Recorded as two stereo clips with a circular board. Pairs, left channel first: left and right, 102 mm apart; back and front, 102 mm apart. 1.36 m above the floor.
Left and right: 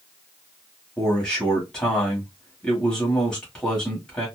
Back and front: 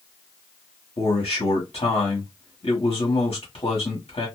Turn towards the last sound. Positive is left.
turn(degrees=170)